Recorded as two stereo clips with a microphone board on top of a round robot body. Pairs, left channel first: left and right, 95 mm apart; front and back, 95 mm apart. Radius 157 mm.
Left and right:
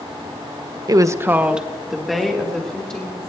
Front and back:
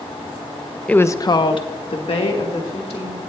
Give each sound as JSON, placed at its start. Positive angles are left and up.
{"t": 0.9, "sound": "a woman speaking", "azimuth_deg": -70, "distance_m": 0.7}